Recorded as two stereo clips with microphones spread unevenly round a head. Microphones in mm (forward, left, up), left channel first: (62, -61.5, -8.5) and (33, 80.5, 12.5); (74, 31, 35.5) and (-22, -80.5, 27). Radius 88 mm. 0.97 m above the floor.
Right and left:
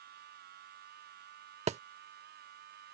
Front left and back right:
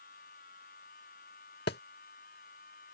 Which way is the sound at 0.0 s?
95° left.